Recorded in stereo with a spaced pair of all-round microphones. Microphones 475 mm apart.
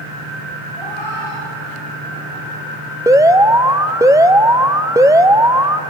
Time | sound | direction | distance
0.8 | a cat meowing | 65° left (ahead or behind) | 9.5 m
3.1 | an alarm | 5° right (ahead or behind) | 0.8 m